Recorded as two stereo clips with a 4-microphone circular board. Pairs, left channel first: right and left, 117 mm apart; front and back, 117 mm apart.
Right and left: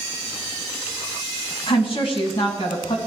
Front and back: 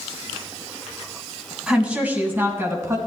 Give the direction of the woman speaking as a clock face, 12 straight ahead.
3 o'clock.